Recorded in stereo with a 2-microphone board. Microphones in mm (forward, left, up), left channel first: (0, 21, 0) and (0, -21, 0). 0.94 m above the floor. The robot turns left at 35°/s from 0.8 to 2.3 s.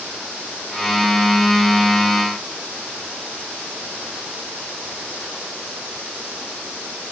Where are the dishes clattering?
I don't hear dishes clattering.